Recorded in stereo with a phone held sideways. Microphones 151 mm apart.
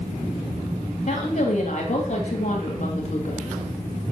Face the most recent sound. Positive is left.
turn(degrees=50)  # may be behind; listen again after turning